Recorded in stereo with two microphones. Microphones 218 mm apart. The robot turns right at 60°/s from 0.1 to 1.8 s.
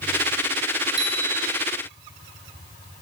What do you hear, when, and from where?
1.0 s a bicycle bell: 120° right, 9.5 m; by 1.6 s 85° right, 9.5 m